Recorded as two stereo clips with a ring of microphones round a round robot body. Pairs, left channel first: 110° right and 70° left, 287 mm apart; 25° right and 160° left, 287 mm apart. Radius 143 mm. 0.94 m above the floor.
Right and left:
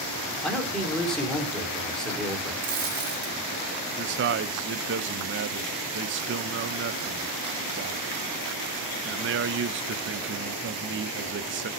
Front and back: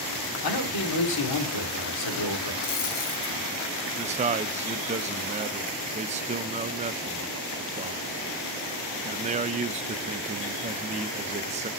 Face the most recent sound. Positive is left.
turn(degrees=100)